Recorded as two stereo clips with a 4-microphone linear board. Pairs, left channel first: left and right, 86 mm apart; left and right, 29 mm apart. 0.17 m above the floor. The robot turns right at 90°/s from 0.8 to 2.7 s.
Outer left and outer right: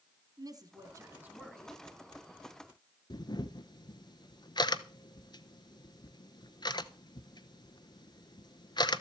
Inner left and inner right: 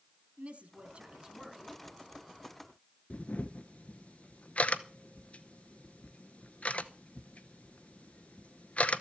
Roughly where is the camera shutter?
Left.